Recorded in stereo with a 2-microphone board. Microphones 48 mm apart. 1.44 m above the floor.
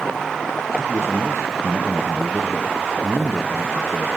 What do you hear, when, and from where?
0.8 s a man speaking: 75° right (ahead or behind), 1.0 m